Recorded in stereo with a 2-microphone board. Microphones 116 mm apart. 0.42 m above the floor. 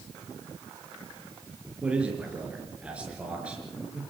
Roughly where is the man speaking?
Centre.